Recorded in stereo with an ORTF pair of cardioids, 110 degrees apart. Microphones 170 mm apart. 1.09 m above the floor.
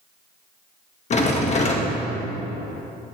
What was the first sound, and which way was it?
A rattle, 45° left.